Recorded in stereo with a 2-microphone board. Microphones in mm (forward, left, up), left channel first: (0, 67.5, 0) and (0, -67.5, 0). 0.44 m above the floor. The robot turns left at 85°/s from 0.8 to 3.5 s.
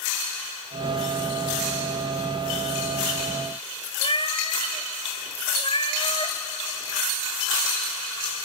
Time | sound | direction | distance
4.0 | a cat meowing | 40° left (ahead or behind) | 1.6 m